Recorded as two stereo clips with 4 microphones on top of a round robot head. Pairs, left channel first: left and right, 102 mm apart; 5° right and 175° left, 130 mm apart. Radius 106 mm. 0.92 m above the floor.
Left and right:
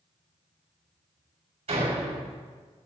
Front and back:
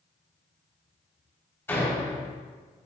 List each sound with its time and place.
1.7 s a door slam: 80° right, 4.5 m